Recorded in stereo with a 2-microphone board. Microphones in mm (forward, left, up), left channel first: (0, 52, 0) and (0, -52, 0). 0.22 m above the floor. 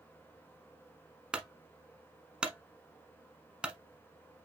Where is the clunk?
10° right (ahead or behind), 0.9 m.